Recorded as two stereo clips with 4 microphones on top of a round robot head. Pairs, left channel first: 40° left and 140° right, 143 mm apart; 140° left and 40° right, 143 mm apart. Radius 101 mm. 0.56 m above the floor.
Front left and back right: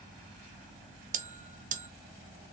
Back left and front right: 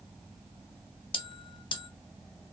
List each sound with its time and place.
1.1 s a bell: 165° right, 0.6 m